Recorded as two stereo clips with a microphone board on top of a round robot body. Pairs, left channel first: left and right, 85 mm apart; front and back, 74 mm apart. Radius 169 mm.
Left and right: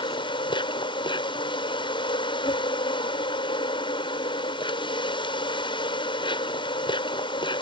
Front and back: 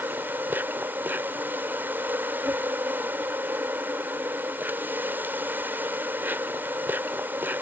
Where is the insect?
115° left.